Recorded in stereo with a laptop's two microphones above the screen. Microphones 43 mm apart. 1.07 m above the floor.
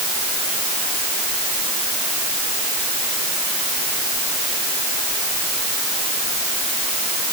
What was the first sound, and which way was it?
Only background noise.